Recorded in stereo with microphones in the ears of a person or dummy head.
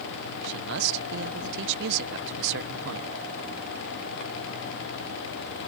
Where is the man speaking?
60° right (ahead or behind).